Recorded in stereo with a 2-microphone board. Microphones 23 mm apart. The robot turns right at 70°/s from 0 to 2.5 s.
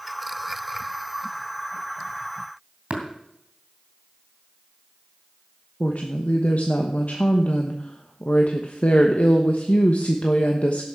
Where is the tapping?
55° right (ahead or behind), 2.5 m.